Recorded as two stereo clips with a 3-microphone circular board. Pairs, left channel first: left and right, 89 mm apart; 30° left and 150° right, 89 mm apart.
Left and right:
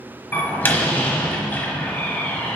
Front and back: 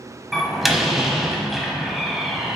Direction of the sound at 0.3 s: 125° left.